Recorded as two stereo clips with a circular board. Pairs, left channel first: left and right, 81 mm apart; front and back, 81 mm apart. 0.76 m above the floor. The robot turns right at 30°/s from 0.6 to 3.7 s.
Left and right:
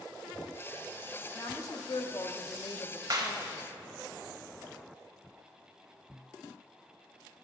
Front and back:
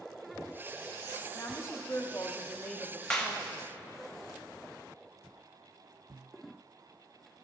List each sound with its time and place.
1.4 s a woman speaking: 45° left, 0.8 m; by 3.7 s 115° left, 0.8 m
3.1 s a clap: 80° right, 1.0 m; by 3.4 s 75° right, 1.0 m